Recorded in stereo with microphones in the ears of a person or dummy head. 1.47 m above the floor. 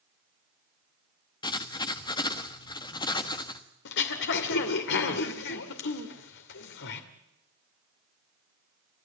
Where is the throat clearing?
65° left (ahead or behind), 2 m.